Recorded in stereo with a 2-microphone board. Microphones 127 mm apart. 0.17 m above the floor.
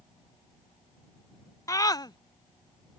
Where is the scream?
25° left (ahead or behind); by 3.0 s 45° left (ahead or behind).